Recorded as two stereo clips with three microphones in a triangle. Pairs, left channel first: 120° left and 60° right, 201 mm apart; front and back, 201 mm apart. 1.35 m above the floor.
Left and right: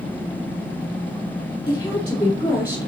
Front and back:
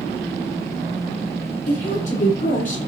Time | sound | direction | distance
1.7 | a woman speaking | 50° left | 5 m